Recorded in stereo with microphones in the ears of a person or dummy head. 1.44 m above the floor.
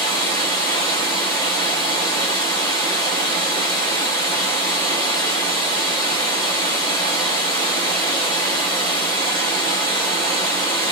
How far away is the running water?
About 0.9 m.